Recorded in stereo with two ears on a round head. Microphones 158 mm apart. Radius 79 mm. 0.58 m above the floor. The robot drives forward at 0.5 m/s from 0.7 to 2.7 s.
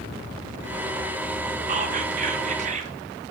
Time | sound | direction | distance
1.7 | whispering | 40° right (ahead or behind) | 0.8 m